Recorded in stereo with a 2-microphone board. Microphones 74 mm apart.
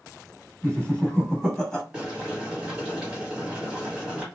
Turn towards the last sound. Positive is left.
turn(degrees=-10)  # may be behind; listen again after turning